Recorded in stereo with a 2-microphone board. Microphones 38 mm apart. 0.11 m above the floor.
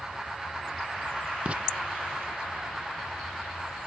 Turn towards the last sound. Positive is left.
turn(degrees=-35)  # may be behind; listen again after turning